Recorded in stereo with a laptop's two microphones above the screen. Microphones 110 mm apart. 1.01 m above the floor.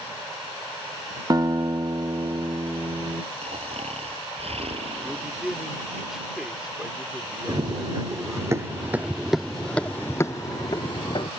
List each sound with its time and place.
1.3 s a guitar: 35° right (ahead or behind)
3.4 s snoring: 65° right (ahead or behind)
5.0 s a man speaking: 5° right (ahead or behind)
7.5 s running footsteps: 40° right (ahead or behind); by 11.3 s 50° left (ahead or behind)